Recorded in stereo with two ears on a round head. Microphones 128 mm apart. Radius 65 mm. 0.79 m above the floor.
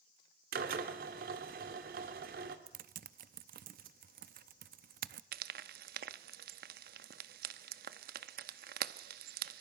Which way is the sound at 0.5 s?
70° right (ahead or behind).